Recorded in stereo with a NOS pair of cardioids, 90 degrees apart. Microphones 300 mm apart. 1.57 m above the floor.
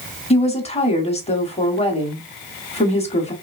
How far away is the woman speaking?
About 1.1 m.